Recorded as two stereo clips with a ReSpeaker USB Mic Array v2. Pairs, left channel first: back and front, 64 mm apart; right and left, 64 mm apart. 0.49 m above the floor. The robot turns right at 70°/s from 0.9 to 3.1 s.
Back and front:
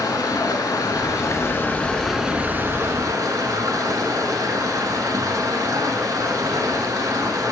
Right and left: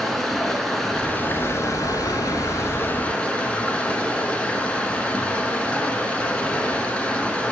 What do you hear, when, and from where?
0.0 s running water: 175° right, 0.9 m; by 7.5 s 20° right, 0.9 m